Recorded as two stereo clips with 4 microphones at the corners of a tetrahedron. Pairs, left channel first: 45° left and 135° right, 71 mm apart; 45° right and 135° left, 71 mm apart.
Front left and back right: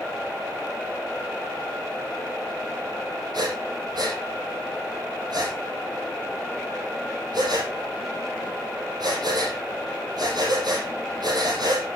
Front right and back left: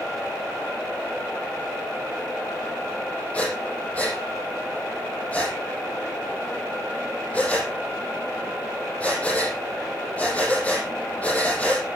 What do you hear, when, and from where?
3.3 s breathing: 120° right, 6 m